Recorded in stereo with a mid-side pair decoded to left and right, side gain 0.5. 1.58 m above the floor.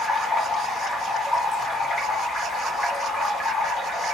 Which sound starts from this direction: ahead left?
Running water, at 0.0 s.